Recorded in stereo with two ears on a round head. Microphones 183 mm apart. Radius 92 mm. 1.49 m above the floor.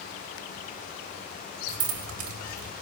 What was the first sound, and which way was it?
Keys jangling, 75° right (ahead or behind).